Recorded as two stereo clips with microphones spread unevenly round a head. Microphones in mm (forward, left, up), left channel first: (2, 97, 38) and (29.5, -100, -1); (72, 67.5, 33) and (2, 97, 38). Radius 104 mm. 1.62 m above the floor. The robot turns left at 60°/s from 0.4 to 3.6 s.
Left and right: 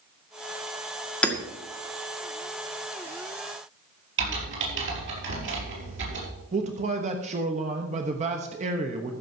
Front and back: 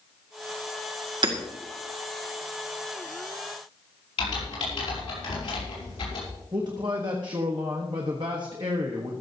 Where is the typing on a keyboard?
45° right, 5.5 m.